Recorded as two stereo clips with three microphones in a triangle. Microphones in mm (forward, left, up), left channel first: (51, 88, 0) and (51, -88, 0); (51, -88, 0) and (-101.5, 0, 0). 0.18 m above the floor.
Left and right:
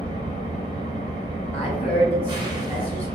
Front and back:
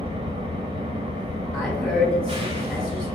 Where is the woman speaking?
50° left, 1.4 m.